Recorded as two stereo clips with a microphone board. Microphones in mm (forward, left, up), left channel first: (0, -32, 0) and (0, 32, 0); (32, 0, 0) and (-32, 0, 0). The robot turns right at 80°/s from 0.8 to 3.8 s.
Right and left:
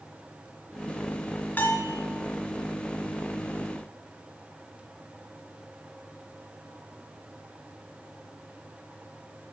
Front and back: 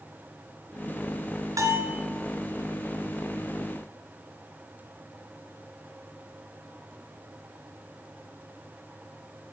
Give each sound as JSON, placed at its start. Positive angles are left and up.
{"t": 1.6, "sound": "a bell", "azimuth_deg": -145, "distance_m": 2.5}